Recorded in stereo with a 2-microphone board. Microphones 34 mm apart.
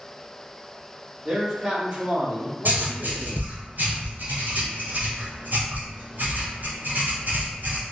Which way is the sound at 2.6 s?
65° right (ahead or behind).